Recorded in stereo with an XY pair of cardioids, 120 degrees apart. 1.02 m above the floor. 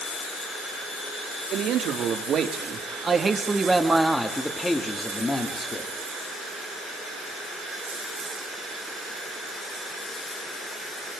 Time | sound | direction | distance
1.5 | a man speaking | 65° right | 2.5 m